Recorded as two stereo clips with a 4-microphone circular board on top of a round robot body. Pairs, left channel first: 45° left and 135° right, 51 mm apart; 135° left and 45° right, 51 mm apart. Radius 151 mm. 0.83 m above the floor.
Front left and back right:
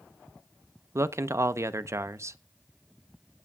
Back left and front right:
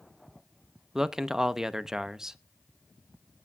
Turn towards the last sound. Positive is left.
turn(degrees=-125)